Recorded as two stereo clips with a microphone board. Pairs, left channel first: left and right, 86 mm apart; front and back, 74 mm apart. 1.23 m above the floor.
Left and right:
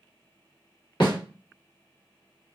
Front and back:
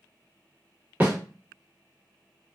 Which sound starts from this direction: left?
A snare drum, at 1.0 s.